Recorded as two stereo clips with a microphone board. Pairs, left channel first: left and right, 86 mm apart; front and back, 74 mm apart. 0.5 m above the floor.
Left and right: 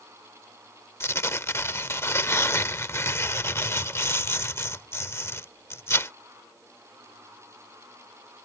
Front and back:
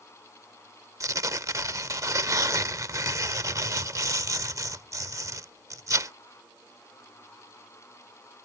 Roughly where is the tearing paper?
Behind left.